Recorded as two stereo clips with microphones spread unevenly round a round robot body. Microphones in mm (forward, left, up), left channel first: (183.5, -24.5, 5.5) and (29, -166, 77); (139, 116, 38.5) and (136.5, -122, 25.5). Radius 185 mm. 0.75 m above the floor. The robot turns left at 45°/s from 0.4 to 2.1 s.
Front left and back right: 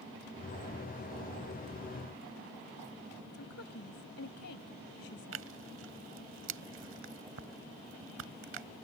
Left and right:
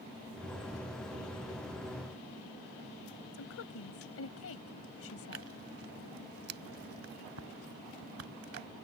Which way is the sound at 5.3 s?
145° right.